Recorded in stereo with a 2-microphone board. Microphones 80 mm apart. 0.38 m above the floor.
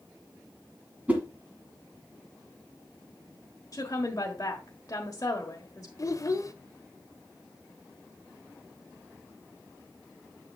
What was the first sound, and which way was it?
A whoosh, 20° right (ahead or behind).